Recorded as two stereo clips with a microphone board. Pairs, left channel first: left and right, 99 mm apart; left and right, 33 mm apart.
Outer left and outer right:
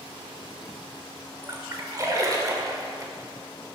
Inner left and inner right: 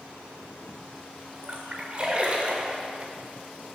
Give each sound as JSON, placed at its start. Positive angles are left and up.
{"t": 1.4, "sound": "a splash", "side_deg": -35, "distance_m": 1.0}